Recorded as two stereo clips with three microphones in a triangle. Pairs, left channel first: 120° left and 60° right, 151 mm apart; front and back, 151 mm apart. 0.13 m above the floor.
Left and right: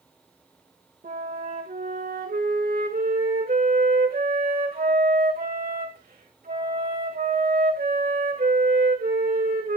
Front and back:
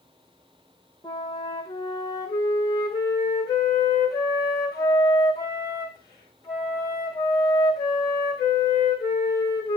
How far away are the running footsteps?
No running footsteps in this recording.